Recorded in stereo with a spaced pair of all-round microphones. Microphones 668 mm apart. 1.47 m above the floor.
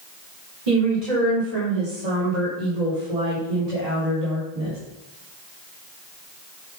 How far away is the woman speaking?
About 4 m.